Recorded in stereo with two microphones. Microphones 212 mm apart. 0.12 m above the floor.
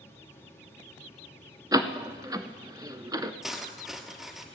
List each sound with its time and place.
1.7 s a door slam: 20° right (ahead or behind), 0.8 m
3.4 s cutlery clinking: centre (ahead or behind), 1.5 m